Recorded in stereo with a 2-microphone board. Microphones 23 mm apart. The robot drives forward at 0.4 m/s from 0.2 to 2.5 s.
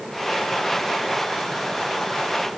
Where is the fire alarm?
No fire alarm in this recording.